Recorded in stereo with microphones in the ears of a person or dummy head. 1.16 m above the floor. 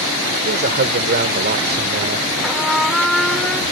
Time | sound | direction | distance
0.4 | a man speaking | 45° right (ahead or behind) | ?
2.4 | a trumpet | centre (ahead or behind) | ?